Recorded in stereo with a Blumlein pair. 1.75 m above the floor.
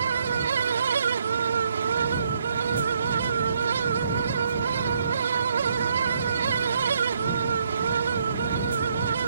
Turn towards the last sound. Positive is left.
turn(degrees=-70)